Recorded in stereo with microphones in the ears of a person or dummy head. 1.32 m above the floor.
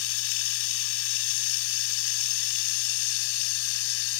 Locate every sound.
0.0 s running water: 75° left (ahead or behind)